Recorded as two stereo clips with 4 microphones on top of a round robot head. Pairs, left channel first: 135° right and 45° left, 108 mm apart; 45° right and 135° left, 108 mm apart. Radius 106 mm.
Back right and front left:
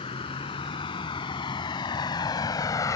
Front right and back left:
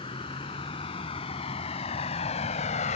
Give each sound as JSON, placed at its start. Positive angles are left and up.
{"t": 0.0, "sound": "a vehicle", "azimuth_deg": -90}